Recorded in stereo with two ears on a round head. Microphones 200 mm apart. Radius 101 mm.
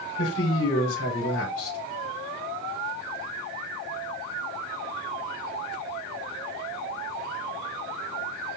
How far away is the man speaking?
About 4 m.